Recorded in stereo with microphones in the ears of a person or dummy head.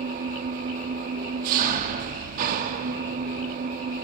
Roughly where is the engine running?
Right.